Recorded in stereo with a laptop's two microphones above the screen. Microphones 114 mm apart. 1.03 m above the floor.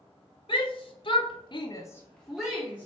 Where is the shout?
50° left (ahead or behind), 1.2 m; by 2.9 s 15° right (ahead or behind), 0.9 m.